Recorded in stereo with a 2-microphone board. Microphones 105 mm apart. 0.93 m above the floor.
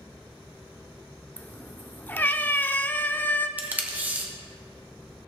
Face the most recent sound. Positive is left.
turn(degrees=-15)  # may be behind; listen again after turning